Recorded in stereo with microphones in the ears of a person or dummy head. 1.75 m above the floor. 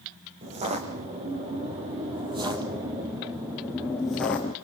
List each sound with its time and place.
0.4 s footsteps: 30° right (ahead or behind), 3.5 m; by 4.5 s 10° left (ahead or behind), 1.7 m